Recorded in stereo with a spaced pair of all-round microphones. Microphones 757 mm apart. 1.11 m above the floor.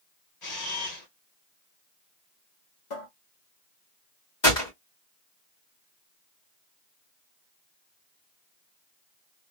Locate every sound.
0.4 s a camera shutter: 60° left (ahead or behind), 1.7 m
2.9 s a cupboard door: 70° left (ahead or behind), 1.2 m
4.4 s a gunshot: 35° left (ahead or behind), 1.9 m